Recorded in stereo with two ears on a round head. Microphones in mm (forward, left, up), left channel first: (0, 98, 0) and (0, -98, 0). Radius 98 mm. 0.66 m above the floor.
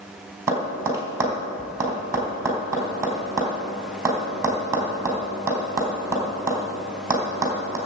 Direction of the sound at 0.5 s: 15° right (ahead or behind).